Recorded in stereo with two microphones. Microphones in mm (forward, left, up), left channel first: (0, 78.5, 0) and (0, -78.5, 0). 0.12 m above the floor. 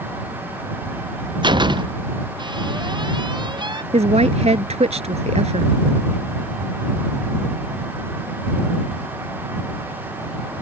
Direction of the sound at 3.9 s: 45° right (ahead or behind).